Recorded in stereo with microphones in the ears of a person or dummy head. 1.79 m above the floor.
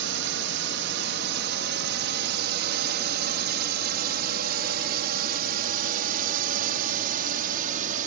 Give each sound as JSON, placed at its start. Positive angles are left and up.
{"t": 0.0, "sound": "a drone", "side_deg": -70}